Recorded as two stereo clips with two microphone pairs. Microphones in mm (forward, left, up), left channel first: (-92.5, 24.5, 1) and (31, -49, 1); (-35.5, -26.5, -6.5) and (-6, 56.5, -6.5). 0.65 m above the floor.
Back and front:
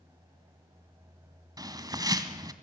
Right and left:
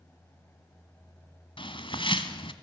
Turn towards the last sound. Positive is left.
turn(degrees=-95)